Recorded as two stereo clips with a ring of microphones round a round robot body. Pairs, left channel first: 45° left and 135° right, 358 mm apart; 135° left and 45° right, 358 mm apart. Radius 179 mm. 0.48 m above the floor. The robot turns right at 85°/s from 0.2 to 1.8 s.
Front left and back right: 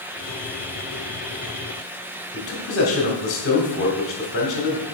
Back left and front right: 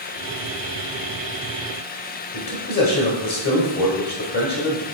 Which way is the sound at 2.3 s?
95° left.